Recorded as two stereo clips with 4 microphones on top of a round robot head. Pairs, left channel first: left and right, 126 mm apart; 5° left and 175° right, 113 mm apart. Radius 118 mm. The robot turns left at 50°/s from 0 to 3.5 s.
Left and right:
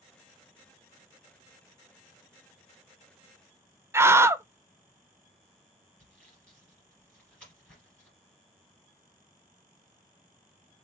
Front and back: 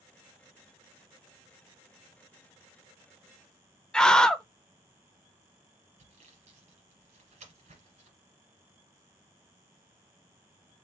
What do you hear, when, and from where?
3.9 s a scream: 65° right, 0.6 m
6.0 s sawing: 170° left, 1.6 m